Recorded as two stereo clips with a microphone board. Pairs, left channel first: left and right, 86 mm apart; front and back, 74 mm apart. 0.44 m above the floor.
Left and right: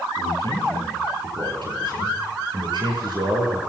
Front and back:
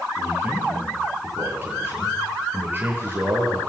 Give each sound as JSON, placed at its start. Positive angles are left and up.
{"t": 0.2, "sound": "a man speaking", "azimuth_deg": -115, "distance_m": 8.5}